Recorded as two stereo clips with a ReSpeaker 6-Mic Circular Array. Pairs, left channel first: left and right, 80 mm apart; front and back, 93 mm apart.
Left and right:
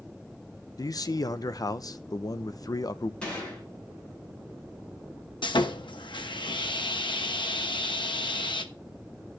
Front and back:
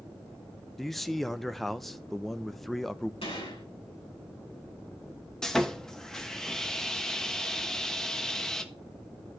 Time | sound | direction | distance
0.8 | a man speaking | 90° left | 0.7 m
3.2 | a gunshot | 10° left | 9 m
5.4 | sawing | 85° left | 1.1 m